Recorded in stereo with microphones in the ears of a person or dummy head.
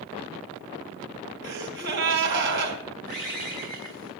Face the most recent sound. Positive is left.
turn(degrees=-55)  # may be behind; listen again after turning